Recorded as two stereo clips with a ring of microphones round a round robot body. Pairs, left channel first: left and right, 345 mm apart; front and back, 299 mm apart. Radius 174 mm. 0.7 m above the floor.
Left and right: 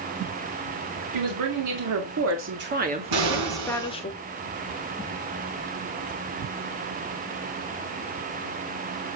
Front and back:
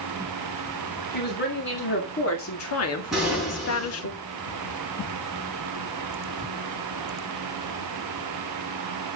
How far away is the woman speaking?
About 2.5 m.